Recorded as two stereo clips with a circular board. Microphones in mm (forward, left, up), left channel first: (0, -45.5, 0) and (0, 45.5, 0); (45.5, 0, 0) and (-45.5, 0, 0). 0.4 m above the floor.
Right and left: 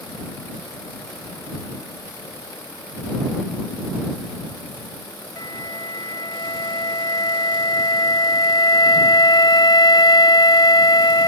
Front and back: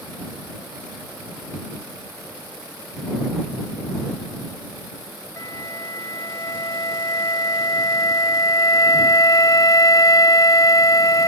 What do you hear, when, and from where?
5.4 s a flute: 50° right